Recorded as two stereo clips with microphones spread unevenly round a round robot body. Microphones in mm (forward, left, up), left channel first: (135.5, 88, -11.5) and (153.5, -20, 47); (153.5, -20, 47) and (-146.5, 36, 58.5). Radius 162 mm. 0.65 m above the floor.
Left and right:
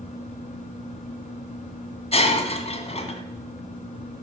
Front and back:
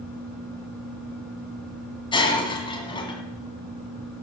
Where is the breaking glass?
65° left, 1.9 m.